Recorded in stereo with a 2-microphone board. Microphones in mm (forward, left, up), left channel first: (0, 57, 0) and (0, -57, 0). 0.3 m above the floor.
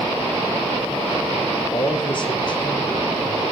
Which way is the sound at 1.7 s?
45° left (ahead or behind).